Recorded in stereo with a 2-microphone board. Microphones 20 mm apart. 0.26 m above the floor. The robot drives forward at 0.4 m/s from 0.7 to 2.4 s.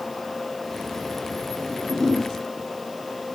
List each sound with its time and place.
1.6 s a whoosh: 50° right (ahead or behind), 6 m